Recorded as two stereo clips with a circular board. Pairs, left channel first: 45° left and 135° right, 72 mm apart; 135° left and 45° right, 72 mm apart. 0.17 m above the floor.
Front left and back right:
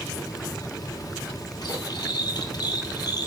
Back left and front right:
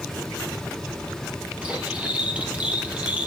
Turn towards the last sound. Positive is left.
turn(degrees=25)